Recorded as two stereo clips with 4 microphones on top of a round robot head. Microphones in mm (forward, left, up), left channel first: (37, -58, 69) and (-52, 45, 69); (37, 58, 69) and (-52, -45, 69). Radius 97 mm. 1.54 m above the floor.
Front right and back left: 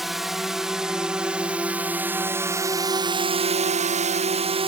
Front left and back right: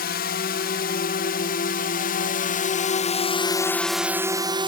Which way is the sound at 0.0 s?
45° left.